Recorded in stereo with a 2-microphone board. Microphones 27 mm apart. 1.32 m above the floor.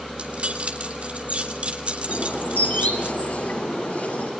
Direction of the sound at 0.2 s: 50° right (ahead or behind).